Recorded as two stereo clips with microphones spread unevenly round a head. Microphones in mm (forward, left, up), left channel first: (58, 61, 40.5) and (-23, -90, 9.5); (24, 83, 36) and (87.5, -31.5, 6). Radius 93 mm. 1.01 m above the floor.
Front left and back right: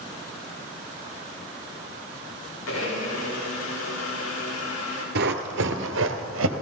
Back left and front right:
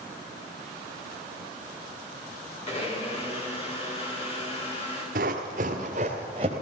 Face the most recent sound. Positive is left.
turn(degrees=-130)